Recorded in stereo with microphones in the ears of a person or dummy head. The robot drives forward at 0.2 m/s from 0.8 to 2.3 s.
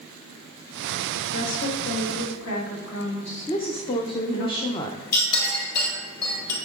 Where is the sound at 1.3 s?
75° left (ahead or behind), 1.6 m; by 4.5 s 70° left (ahead or behind), 1.7 m.